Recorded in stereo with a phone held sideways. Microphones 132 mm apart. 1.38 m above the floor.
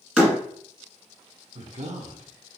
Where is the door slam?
5° right (ahead or behind), 1.2 m.